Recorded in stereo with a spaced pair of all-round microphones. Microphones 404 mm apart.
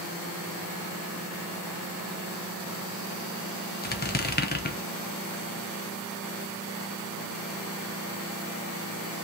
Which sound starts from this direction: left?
A squeak, at 3.8 s.